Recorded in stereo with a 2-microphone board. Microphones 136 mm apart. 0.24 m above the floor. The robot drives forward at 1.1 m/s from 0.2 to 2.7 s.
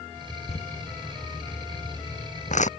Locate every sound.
0.5 s crumpling: 50° left (ahead or behind); by 2.7 s 60° left (ahead or behind)